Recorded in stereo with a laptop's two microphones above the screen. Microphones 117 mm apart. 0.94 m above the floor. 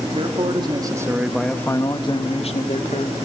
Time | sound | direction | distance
0.1 | a man speaking | 50° right (ahead or behind) | 2.5 m